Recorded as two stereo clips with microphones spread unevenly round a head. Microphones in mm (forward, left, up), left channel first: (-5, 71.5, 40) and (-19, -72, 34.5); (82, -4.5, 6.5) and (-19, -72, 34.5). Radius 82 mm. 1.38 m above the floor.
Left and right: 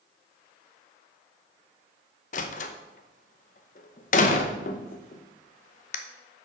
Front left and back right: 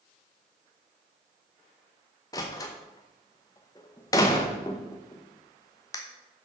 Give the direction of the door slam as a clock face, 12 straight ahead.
8 o'clock.